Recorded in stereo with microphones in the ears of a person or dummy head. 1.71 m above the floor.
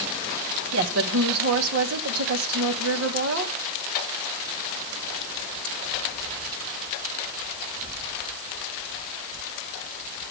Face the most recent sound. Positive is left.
turn(degrees=-80)